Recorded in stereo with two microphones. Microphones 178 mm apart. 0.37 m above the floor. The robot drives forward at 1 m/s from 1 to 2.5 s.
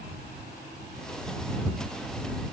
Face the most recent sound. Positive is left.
No sound to turn to.